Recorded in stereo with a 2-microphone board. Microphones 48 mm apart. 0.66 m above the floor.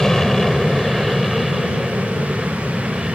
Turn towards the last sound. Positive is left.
turn(degrees=-10)  # may be behind; listen again after turning